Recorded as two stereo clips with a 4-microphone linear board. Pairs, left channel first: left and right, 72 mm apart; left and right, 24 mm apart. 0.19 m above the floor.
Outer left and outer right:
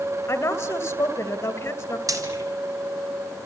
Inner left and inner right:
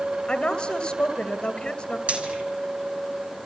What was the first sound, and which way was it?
A woman speaking, 40° left (ahead or behind).